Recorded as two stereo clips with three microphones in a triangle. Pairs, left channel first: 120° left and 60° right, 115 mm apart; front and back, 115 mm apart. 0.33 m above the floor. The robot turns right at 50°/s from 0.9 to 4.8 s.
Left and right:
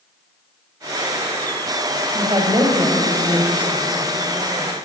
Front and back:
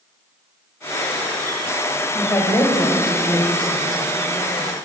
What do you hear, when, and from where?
2.1 s a woman speaking: 65° right, 1.3 m; by 4.7 s 65° left, 1.3 m